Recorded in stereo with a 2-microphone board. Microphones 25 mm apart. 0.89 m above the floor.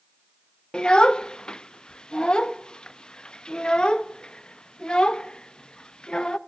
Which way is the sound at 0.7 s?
35° left (ahead or behind).